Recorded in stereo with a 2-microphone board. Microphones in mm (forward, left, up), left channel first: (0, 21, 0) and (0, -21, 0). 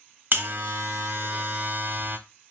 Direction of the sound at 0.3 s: 45° right (ahead or behind).